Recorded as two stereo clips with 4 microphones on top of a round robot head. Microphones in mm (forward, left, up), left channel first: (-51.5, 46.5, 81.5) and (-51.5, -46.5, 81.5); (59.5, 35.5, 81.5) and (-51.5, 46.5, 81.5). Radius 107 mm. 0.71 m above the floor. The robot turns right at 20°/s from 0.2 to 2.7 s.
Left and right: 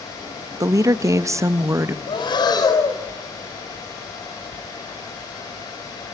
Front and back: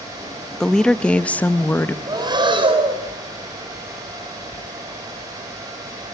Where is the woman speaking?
90° right, 0.8 m; by 2.0 s 60° right, 0.8 m.